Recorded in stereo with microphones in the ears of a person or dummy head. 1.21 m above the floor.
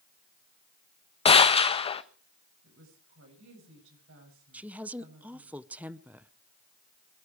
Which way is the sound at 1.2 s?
25° left (ahead or behind).